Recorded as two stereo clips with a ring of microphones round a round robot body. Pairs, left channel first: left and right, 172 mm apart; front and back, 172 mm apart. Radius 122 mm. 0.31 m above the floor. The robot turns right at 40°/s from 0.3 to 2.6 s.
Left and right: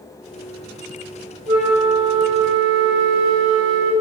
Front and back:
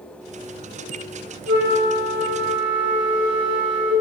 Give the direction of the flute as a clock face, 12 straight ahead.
5 o'clock.